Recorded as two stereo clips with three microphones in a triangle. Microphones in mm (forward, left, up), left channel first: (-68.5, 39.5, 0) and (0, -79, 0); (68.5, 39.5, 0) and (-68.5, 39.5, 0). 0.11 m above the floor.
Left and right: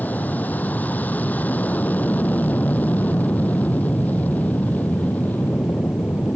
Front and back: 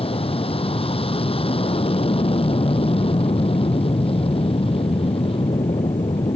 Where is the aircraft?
45° left.